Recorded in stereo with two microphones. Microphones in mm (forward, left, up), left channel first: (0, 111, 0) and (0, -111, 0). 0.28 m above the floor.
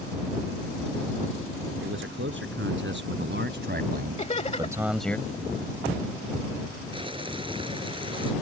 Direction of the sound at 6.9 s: 25° right (ahead or behind).